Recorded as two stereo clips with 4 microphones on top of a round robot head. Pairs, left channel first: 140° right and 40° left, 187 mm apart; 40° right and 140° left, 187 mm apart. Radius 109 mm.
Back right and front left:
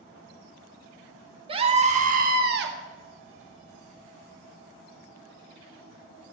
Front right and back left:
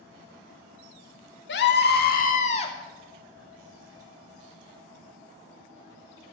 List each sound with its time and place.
1.5 s a scream: 20° right, 1.9 m; by 2.8 s 20° left, 1.3 m